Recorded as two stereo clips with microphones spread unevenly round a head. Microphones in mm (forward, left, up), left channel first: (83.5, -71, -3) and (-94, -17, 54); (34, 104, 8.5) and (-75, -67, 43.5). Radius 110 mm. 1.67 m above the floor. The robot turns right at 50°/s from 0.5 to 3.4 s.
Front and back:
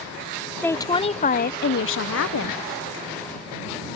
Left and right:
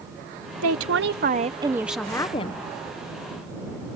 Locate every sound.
0.6 s a woman speaking: 100° right; by 2.6 s straight ahead